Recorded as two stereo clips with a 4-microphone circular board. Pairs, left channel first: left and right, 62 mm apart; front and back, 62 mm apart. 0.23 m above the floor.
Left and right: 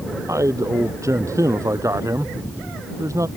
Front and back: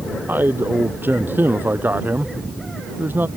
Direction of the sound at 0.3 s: 125° right.